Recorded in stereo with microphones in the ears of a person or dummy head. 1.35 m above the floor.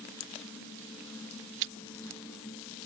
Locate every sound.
1.6 s chewing: 60° right (ahead or behind)